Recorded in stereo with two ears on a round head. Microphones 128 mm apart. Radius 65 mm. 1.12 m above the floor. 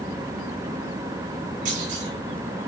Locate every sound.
1.6 s a clunk: 55° right (ahead or behind), 5.5 m